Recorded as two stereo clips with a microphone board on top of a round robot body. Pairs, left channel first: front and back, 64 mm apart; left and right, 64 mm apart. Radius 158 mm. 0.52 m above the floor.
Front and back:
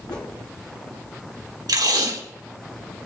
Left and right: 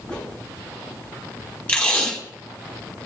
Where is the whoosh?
15° left, 4 m.